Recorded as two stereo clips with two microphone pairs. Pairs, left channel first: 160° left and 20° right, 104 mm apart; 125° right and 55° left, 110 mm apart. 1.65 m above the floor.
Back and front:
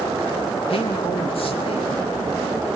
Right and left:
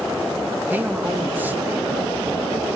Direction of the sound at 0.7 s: 130° left.